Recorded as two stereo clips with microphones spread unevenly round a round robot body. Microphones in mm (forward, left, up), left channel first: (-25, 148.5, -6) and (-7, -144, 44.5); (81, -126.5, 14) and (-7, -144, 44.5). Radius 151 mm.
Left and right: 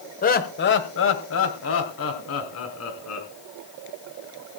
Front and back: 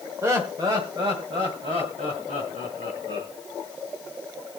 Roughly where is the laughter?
Behind left.